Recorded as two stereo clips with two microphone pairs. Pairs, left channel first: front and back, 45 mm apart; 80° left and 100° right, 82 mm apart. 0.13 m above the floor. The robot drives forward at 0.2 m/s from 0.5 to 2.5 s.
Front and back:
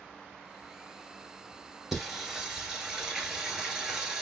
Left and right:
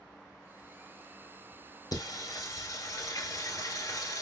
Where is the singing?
100° left, 0.9 m; by 4.2 s 105° left, 1.0 m.